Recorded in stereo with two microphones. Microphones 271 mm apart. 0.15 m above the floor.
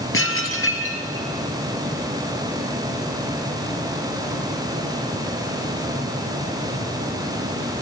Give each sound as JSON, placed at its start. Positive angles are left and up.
{"t": 0.1, "sound": "dishes clattering", "side_deg": 50, "distance_m": 2.0}